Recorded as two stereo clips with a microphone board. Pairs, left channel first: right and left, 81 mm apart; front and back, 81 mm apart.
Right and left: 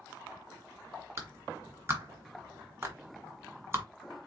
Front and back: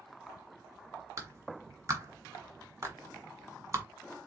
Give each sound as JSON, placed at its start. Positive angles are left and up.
{"t": 1.2, "sound": "a clap", "azimuth_deg": 140, "distance_m": 1.6}